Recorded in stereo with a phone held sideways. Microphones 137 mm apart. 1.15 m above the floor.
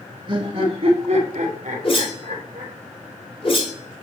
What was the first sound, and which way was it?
Laughter, 35° right (ahead or behind).